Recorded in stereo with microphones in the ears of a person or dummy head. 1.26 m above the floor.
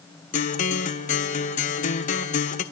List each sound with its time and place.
0.3 s a guitar: 40° left (ahead or behind), 1.1 m